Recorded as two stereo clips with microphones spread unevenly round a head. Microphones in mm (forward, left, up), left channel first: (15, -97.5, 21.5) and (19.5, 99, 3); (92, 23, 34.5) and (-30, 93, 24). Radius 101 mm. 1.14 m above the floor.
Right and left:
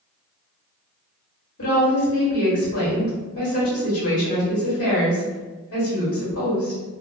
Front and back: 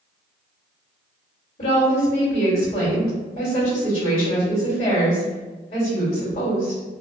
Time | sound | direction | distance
1.6 | a woman speaking | 85° right | 1.6 m